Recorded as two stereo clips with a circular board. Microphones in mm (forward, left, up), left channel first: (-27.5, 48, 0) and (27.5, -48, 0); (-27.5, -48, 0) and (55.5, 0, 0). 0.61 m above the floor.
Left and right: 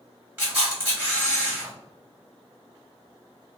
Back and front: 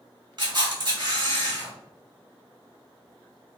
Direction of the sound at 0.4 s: 10° left.